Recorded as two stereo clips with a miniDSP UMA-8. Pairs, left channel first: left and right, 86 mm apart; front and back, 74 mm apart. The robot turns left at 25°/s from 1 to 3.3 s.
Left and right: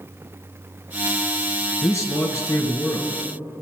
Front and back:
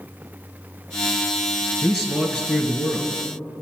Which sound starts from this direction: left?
A man speaking, at 1.8 s.